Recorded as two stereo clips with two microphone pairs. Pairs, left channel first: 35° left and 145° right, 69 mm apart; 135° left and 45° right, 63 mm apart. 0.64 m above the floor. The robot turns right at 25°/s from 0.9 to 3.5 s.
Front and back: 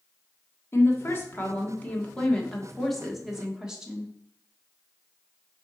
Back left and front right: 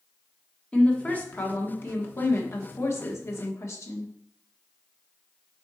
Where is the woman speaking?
70° left, 1.3 m; by 4.1 s 135° left, 1.3 m.